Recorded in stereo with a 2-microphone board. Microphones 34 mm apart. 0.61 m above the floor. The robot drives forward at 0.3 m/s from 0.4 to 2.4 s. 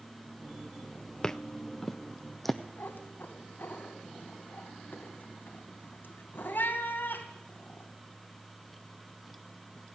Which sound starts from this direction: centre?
Footsteps, at 1.2 s.